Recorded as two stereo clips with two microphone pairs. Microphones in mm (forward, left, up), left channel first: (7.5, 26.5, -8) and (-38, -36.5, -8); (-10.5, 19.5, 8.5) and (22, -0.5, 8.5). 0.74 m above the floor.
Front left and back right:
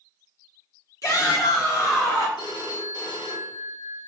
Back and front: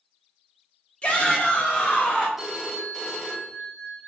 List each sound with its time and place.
1.0 s a shout: 90° left, 1.4 m; by 2.3 s 85° left, 2.5 m
2.4 s a phone ringing: 55° left, 1.1 m